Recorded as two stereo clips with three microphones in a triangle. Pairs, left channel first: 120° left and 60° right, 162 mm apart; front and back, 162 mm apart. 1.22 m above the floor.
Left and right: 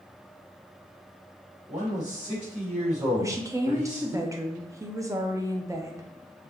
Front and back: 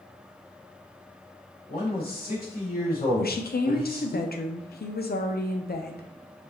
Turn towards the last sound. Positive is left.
turn(degrees=10)